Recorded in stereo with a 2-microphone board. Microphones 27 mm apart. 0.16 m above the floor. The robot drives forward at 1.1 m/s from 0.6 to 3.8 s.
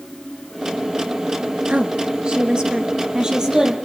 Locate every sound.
1.7 s a woman speaking: 45° right (ahead or behind), 2 m; by 3.7 s 20° right (ahead or behind), 4 m